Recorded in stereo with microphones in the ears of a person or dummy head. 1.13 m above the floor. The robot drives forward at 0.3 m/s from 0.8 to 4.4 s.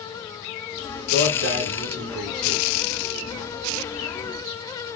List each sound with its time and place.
1.1 s a man speaking: 45° right (ahead or behind), 1.4 m; by 2.6 s 55° right (ahead or behind), 1.2 m